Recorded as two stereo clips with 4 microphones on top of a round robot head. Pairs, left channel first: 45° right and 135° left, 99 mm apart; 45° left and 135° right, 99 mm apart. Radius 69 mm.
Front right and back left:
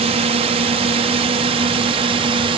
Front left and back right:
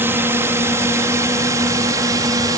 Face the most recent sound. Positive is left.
turn(degrees=170)